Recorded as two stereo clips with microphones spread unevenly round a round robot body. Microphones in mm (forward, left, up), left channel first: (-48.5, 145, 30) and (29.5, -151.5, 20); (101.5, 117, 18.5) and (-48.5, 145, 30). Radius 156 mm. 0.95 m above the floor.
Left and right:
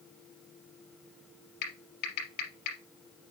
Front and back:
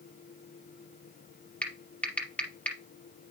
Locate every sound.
1.6 s typing on a keyboard: 70° left, 4 m